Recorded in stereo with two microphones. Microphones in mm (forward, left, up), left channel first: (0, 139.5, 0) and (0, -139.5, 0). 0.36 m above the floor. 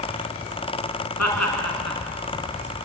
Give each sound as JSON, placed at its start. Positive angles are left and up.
{"t": 1.2, "sound": "laughter", "side_deg": 75, "distance_m": 5.0}